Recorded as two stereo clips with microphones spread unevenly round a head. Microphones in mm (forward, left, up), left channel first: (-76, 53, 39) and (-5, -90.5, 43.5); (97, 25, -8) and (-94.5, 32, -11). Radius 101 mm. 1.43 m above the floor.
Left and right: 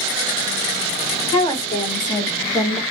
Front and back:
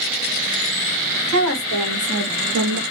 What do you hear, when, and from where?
1.3 s a woman speaking: 170° left, 1.6 m; by 2.8 s 165° right, 0.6 m